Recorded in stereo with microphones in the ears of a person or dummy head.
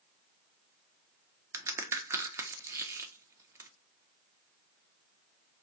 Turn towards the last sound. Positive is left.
turn(degrees=-15)  # may be behind; listen again after turning